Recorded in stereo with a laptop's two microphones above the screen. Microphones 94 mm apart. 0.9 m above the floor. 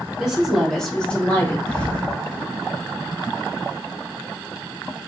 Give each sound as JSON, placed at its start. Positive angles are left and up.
{"t": 0.2, "sound": "a woman speaking", "side_deg": -5, "distance_m": 1.7}
{"t": 1.7, "sound": "a thud", "side_deg": 10, "distance_m": 1.2}